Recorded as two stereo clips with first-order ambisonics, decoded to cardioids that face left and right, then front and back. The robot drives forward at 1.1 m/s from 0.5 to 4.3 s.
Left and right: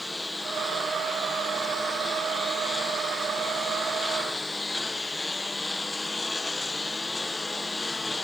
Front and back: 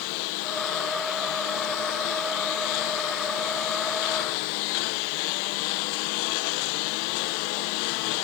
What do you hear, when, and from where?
0.0 s a lawn mower: 5° left; by 8.2 s 10° left